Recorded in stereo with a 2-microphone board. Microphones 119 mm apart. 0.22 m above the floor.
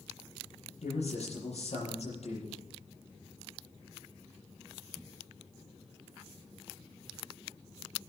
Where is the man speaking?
65° left (ahead or behind), 7.5 m.